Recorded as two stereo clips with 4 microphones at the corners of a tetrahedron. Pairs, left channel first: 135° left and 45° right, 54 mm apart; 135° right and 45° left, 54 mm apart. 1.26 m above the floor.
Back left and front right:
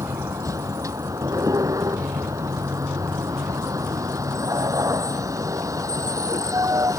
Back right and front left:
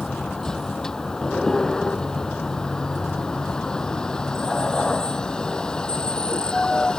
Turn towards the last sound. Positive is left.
turn(degrees=-60)